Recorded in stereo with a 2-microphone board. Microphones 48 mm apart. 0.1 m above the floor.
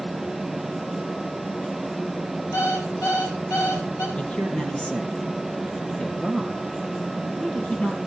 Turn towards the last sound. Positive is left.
turn(degrees=25)  # may be behind; listen again after turning